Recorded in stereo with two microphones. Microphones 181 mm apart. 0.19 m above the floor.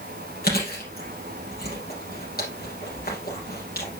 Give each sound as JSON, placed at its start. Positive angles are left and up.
{"t": 0.4, "sound": "chewing", "side_deg": 60, "distance_m": 4.0}